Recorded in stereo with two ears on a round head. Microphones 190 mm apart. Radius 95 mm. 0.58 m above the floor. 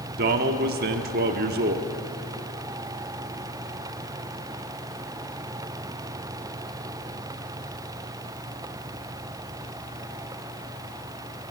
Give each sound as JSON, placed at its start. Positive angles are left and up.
{"t": 0.2, "sound": "a man speaking", "side_deg": -45, "distance_m": 1.1}